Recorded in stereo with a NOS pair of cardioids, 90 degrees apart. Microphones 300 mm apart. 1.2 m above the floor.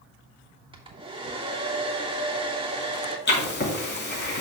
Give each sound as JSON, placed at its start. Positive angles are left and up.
{"t": 0.7, "sound": "a hair dryer", "azimuth_deg": -15, "distance_m": 1.6}
{"t": 3.3, "sound": "writing", "azimuth_deg": 35, "distance_m": 3.5}